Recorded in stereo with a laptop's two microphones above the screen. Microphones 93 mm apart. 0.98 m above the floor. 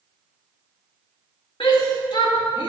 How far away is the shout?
About 1.8 m.